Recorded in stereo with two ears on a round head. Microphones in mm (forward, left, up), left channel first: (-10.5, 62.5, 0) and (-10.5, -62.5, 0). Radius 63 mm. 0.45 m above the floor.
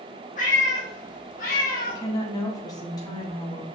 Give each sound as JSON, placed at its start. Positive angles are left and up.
{"t": 0.4, "sound": "a cat meowing", "side_deg": 65, "distance_m": 2.5}
{"t": 1.9, "sound": "a woman speaking", "side_deg": 30, "distance_m": 2.5}